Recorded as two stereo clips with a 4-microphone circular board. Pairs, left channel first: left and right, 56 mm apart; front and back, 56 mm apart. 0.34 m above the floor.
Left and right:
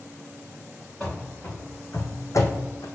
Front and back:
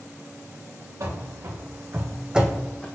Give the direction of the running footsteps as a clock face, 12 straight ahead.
7 o'clock.